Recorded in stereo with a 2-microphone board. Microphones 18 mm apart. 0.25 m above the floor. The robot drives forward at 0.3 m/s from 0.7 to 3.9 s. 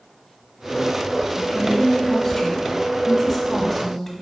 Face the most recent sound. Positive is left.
turn(degrees=15)  # may be behind; listen again after turning